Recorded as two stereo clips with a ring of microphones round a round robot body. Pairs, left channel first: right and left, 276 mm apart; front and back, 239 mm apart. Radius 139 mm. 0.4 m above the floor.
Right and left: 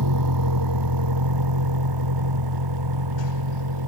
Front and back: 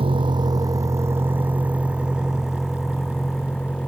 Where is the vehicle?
110° left; by 3.9 s 85° left.